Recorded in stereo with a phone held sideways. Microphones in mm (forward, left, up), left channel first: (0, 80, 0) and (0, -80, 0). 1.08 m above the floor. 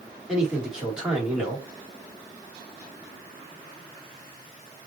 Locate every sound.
0.3 s a man speaking: 5° right (ahead or behind), 3 m